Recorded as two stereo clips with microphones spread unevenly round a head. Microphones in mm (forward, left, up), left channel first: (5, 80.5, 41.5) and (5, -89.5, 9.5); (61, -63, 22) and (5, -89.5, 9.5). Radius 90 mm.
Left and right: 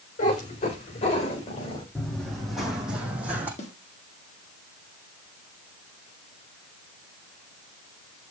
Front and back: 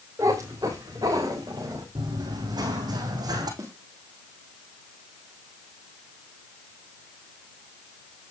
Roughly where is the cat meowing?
Behind left.